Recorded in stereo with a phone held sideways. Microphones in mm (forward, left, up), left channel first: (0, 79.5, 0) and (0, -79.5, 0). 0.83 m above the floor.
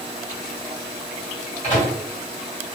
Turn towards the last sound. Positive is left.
turn(degrees=45)  # may be behind; listen again after turning